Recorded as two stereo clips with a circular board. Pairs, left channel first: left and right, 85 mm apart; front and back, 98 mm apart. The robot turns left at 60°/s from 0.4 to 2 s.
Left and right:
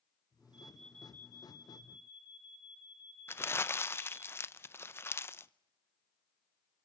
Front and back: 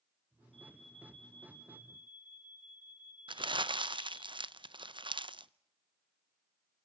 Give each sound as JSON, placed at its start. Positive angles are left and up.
{"t": 0.5, "sound": "an alarm", "azimuth_deg": -165, "distance_m": 4.5}
{"t": 3.3, "sound": "crumpling", "azimuth_deg": 150, "distance_m": 0.6}